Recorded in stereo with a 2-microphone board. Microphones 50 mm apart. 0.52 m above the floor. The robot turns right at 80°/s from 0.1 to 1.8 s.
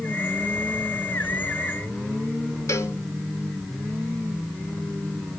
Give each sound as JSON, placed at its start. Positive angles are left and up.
{"t": 2.7, "sound": "a cowbell", "side_deg": 60, "distance_m": 2.0}